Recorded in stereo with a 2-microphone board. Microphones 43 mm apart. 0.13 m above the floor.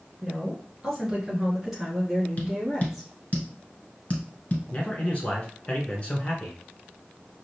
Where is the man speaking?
30° left (ahead or behind), 1.2 m.